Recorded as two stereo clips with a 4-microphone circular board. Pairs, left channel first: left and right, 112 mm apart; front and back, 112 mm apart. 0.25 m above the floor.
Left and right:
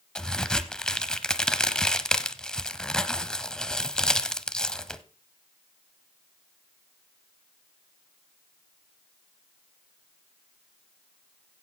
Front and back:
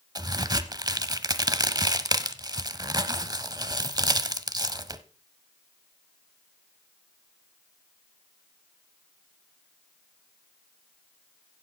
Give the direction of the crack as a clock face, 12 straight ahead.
6 o'clock.